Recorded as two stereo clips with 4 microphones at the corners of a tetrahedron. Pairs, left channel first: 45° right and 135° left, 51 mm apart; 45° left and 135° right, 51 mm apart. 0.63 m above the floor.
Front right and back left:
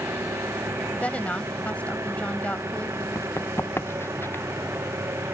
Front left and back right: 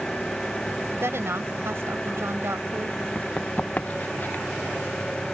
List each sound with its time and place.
0.0 s an engine running: 120° left
1.0 s a woman speaking: 105° right
3.1 s running footsteps: 20° right; by 4.5 s 5° right